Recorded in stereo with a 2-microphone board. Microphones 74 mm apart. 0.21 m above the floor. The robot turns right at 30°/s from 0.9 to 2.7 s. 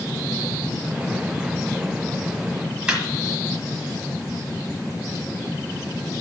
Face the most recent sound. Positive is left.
turn(degrees=-15)  # may be behind; listen again after turning